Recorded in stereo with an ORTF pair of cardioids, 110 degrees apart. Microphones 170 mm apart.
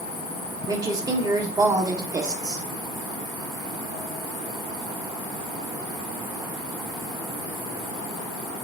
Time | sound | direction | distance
0.7 | a woman speaking | 20° right | 0.9 m